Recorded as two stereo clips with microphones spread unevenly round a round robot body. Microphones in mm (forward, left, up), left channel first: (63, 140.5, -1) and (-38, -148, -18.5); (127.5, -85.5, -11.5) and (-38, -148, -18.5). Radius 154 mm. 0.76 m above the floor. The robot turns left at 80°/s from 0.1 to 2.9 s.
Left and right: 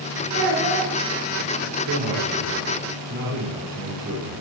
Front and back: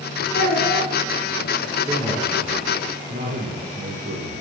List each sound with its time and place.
0.3 s a child speaking: 15° left, 4.5 m; by 0.9 s 30° right, 4.5 m
1.9 s a man speaking: 80° right, 3 m; by 4.4 s 160° right, 3 m